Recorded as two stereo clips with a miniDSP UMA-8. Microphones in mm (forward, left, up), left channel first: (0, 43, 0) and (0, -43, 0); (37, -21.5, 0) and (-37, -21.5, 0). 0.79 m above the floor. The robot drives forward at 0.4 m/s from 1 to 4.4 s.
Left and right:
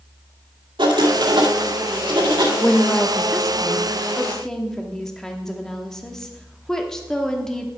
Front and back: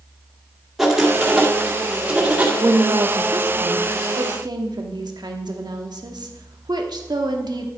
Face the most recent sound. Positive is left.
turn(degrees=170)